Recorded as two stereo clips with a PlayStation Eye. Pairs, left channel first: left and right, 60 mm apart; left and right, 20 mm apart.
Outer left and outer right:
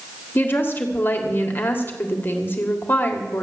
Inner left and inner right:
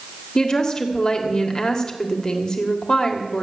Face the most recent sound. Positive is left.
turn(degrees=35)  # may be behind; listen again after turning